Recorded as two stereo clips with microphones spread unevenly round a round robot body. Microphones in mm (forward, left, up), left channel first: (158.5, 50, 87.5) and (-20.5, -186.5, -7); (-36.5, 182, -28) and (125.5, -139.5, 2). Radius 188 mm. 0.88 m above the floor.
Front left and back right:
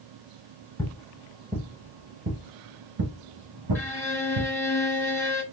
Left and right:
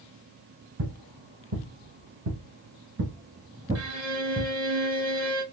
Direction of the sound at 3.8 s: 20° right.